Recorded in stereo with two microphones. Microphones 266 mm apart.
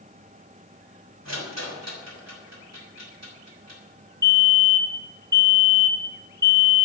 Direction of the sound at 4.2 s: 15° right (ahead or behind).